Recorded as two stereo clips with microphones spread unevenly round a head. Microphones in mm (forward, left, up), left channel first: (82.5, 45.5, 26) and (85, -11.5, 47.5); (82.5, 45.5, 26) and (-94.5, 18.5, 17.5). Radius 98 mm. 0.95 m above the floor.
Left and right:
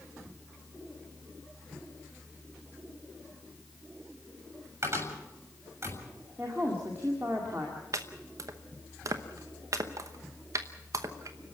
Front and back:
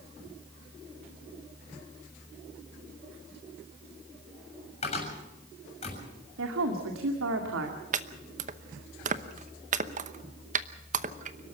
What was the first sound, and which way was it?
A cupboard door, 50° right.